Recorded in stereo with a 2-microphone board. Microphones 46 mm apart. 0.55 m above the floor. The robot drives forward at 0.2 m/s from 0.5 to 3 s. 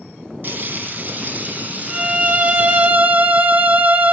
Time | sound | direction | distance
0.4 | frying | 45° right (ahead or behind) | 1.1 m
1.9 | a violin | 30° right (ahead or behind) | 0.6 m